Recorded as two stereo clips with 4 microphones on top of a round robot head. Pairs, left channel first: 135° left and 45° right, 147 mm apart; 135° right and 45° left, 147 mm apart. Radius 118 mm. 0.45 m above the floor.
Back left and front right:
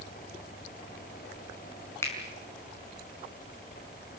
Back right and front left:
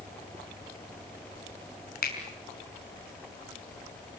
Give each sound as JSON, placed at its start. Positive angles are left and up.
{"t": 2.0, "sound": "a finger snap", "azimuth_deg": -150, "distance_m": 5.0}